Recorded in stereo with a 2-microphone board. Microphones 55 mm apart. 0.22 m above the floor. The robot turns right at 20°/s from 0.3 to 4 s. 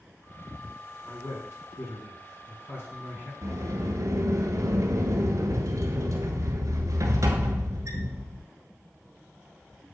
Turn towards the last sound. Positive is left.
turn(degrees=-75)  # may be behind; listen again after turning